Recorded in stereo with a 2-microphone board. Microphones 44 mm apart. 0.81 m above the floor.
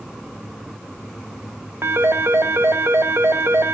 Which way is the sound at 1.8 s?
70° right (ahead or behind).